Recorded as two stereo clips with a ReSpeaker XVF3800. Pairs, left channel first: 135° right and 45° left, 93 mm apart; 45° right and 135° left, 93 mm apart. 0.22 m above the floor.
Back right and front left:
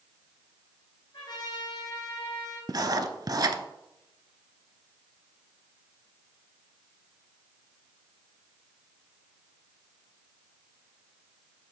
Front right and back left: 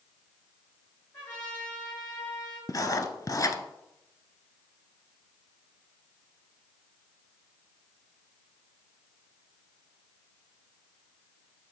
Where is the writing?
5° left, 0.6 m.